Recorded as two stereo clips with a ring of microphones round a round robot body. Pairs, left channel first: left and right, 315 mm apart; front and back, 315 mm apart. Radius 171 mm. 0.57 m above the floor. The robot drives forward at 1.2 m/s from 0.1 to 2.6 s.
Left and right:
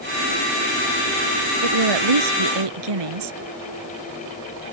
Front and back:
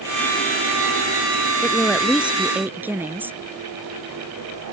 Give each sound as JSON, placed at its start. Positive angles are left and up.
{"t": 1.6, "sound": "a woman speaking", "azimuth_deg": -90}